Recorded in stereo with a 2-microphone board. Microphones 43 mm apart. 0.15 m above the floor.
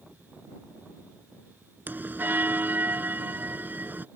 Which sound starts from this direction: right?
A bell, at 1.9 s.